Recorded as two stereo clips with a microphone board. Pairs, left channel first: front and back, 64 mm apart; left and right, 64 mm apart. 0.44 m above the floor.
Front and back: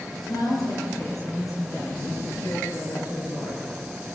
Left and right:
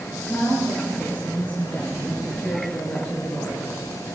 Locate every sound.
0.2 s a woman speaking: 25° left, 8.5 m; by 3.6 s 20° left, 6.5 m